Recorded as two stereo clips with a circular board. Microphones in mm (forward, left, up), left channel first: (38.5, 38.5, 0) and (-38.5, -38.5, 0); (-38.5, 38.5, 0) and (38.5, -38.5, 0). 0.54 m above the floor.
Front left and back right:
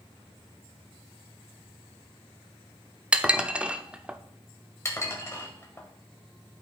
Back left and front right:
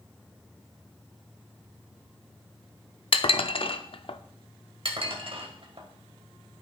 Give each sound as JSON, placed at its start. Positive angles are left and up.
{"t": 3.1, "sound": "dishes clattering", "azimuth_deg": 150, "distance_m": 0.5}
{"t": 4.8, "sound": "dishes clattering", "azimuth_deg": -15, "distance_m": 1.6}